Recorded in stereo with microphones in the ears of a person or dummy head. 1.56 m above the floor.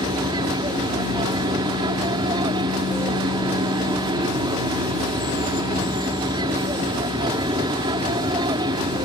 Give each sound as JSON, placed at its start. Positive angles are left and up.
{"t": 0.0, "sound": "an aircraft", "side_deg": -25}